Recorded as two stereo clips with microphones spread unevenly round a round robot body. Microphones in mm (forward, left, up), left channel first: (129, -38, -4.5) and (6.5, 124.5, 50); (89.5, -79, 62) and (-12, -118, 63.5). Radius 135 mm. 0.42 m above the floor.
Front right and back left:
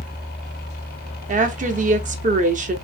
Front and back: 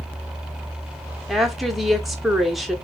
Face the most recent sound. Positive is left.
turn(degrees=115)